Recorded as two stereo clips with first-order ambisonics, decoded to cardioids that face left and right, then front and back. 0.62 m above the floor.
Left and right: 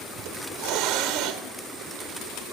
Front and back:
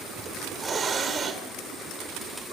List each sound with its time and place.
0.2 s a hiss: 115° right, 1.6 m